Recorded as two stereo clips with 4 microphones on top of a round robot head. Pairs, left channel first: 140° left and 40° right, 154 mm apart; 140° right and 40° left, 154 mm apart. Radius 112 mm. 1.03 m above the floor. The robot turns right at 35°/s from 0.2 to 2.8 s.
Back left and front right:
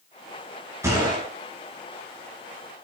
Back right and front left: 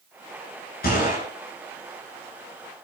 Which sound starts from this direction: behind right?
A gunshot, at 0.8 s.